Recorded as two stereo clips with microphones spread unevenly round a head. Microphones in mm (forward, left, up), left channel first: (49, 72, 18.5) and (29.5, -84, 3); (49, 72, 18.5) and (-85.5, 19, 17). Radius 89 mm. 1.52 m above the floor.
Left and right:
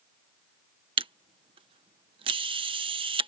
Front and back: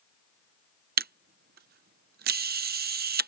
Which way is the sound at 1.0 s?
160° right.